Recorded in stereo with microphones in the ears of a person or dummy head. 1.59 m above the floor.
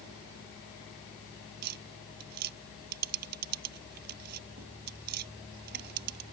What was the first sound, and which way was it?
Tapping, 50° right (ahead or behind).